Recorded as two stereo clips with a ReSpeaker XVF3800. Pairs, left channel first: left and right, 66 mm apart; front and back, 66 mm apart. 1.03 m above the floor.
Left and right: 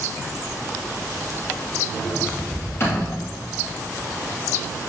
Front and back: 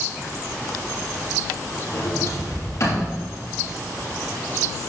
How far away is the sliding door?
About 4 m.